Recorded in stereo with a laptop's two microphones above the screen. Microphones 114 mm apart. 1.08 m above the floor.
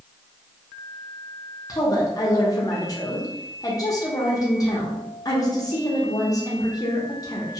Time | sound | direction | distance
1.7 | a woman speaking | 30° left (ahead or behind) | 0.7 m